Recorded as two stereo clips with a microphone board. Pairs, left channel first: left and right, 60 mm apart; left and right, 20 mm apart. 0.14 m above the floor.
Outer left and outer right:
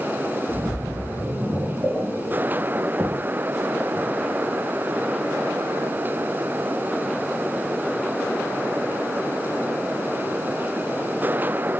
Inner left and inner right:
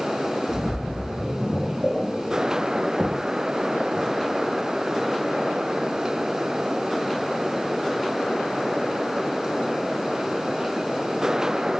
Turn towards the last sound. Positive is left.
turn(degrees=-15)  # may be behind; listen again after turning